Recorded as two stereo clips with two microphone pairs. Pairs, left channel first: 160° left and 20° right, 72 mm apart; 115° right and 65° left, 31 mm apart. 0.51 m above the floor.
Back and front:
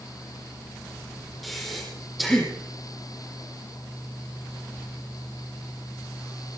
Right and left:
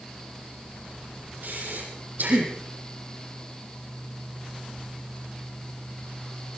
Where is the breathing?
70° left, 7 m.